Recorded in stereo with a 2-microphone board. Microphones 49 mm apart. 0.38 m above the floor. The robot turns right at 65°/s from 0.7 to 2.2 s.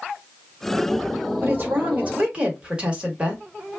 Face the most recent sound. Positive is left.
turn(degrees=-35)